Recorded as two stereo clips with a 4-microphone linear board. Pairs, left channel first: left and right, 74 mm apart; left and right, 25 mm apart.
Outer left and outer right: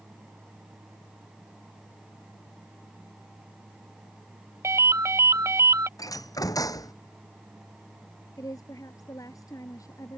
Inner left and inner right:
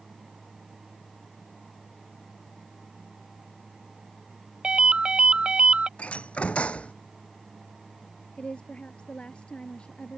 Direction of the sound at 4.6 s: 40° right (ahead or behind).